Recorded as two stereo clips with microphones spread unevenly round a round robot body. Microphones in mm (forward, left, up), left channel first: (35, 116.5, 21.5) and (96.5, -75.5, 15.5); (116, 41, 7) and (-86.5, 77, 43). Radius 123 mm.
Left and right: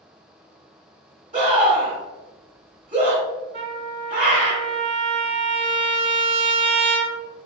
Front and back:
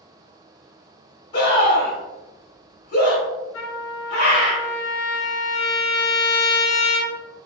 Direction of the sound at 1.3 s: 30° right.